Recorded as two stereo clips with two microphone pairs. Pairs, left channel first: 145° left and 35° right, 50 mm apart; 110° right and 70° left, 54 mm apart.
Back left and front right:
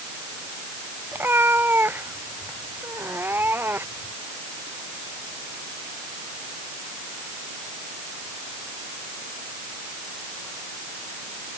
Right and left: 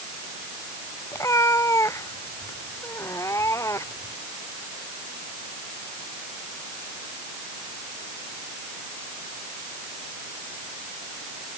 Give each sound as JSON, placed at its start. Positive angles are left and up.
{"t": 1.1, "sound": "a cat meowing", "azimuth_deg": -80}